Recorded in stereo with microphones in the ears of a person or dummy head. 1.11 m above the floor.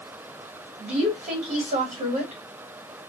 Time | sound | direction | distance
0.8 | a woman speaking | 40° right (ahead or behind) | 1.8 m